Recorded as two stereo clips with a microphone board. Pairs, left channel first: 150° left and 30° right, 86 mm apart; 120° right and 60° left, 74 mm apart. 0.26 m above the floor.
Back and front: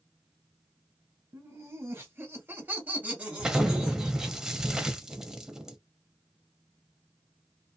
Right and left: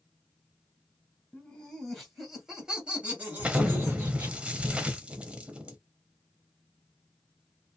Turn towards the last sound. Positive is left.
turn(degrees=35)